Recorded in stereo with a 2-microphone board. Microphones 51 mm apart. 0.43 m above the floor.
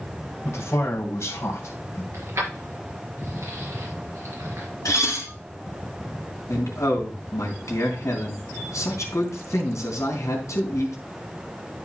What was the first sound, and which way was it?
A man speaking, 65° left (ahead or behind).